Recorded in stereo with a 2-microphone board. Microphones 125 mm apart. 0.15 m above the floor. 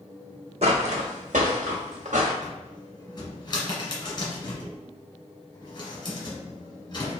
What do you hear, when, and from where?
0.6 s footsteps: 55° right (ahead or behind), 0.6 m; by 2.3 s 75° right (ahead or behind), 1.3 m
2.4 s a cupboard door: 35° left (ahead or behind), 1.4 m